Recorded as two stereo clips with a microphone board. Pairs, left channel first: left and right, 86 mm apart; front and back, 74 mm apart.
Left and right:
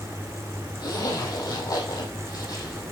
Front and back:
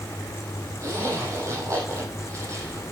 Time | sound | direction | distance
0.8 | a zipper | 130° left | 5.5 m